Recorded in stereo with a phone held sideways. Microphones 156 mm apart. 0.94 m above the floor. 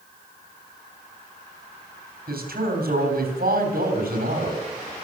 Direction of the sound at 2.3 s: 70° right (ahead or behind).